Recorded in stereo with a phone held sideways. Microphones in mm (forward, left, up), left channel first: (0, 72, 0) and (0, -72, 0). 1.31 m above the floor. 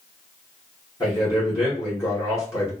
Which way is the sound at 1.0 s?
25° left (ahead or behind).